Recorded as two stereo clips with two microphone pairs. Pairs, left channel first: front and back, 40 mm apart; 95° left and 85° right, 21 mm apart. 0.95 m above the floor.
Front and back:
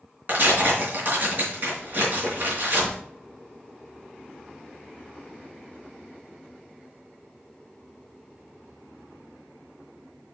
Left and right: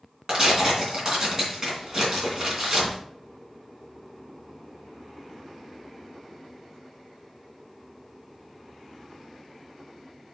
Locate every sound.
0.3 s tearing paper: 135° right, 3 m